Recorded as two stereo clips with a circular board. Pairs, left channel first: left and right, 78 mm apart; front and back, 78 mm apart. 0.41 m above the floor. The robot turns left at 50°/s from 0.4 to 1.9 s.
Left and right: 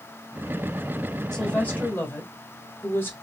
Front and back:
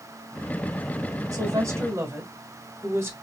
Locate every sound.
1.3 s a woman speaking: 170° left, 1.3 m; by 3.1 s 140° left, 1.3 m